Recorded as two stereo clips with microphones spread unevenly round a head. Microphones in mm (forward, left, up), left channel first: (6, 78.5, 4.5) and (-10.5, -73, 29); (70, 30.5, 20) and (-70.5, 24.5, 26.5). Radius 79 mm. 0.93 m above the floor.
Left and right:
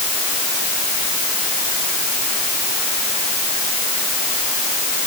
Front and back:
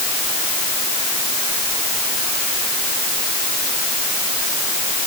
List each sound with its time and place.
Only background noise.